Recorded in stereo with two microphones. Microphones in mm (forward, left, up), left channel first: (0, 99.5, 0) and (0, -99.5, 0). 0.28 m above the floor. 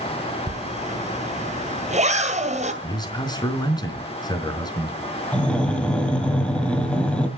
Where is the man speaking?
20° left (ahead or behind), 4 m.